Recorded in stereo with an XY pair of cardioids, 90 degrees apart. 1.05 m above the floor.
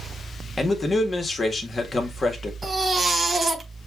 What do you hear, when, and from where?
0.6 s a man speaking: 35° left, 1.4 m
2.6 s a baby crying: 30° right, 1.5 m